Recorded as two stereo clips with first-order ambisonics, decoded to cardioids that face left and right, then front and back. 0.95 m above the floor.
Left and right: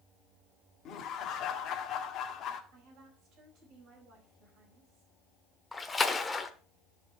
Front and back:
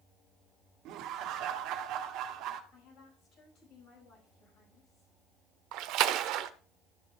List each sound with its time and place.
0.8 s laughter: 140° left, 1.6 m
2.7 s a woman speaking: 40° right, 5.5 m
5.7 s a splash: 170° left, 0.8 m